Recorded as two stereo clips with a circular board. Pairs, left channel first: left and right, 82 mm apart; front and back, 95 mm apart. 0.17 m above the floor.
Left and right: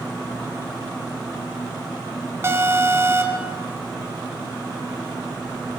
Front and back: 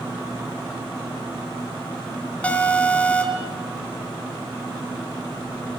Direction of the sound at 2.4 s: 65° right.